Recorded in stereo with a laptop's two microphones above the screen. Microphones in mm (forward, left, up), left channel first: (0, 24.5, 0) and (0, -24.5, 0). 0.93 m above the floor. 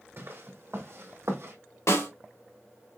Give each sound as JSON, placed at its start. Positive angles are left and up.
{"t": 0.2, "sound": "footsteps", "side_deg": -55, "distance_m": 2.5}
{"t": 1.9, "sound": "a snare drum", "side_deg": 80, "distance_m": 2.5}